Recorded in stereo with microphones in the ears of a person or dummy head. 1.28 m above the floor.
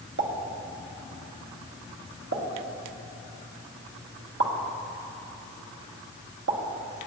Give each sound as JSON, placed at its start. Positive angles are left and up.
{"t": 0.2, "sound": "a pop", "side_deg": -70, "distance_m": 1.2}